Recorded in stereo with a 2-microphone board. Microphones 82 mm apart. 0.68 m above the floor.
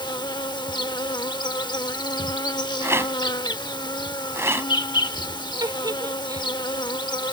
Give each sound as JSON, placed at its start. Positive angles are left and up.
{"t": 0.0, "sound": "an insect", "side_deg": 75}
{"t": 2.8, "sound": "a rattle", "side_deg": -35}
{"t": 5.6, "sound": "a giggle", "side_deg": -70}